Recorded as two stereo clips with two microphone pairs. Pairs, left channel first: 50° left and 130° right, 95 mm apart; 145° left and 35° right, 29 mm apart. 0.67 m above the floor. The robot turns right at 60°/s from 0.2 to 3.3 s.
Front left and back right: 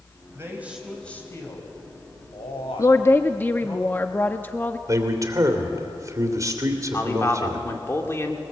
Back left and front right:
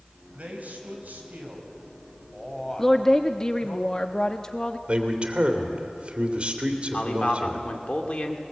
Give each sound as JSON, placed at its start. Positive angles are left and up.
{"t": 0.3, "sound": "a man speaking", "azimuth_deg": -75, "distance_m": 4.0}
{"t": 2.8, "sound": "a woman speaking", "azimuth_deg": 70, "distance_m": 0.6}
{"t": 4.9, "sound": "a man speaking", "azimuth_deg": -80, "distance_m": 2.5}
{"t": 6.9, "sound": "a man speaking", "azimuth_deg": 105, "distance_m": 2.0}